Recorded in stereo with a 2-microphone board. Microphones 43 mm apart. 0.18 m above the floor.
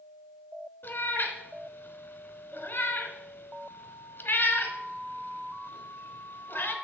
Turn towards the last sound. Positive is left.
turn(degrees=50)  # may be behind; listen again after turning